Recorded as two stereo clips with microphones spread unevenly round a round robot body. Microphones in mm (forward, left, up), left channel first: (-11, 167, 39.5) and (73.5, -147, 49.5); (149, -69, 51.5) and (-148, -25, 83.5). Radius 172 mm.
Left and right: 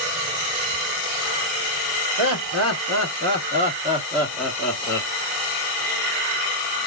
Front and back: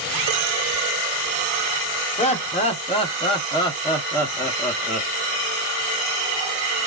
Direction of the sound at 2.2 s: 65° right.